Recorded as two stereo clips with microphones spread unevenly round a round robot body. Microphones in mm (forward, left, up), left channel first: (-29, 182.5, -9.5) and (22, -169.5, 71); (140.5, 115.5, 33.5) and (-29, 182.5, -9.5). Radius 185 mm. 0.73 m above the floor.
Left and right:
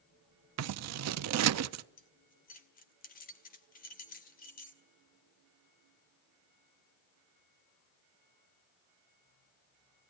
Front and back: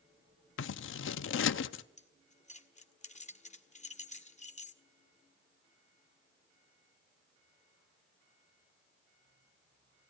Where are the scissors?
30° right, 0.5 m.